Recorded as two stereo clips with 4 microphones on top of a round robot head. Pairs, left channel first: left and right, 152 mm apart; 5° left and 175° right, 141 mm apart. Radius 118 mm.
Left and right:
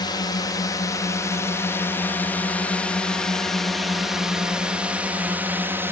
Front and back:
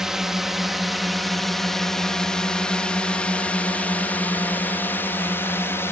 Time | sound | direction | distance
0.0 | a drone | 105° left | ?